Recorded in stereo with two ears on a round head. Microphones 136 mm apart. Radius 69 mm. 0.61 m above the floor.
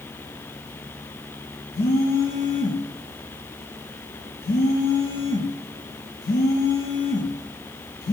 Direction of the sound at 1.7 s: 70° left (ahead or behind).